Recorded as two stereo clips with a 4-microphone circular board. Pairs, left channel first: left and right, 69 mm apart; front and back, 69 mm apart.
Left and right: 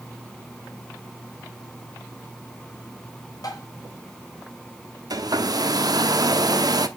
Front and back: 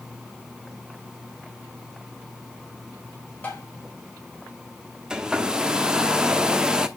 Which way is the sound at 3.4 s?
60° left.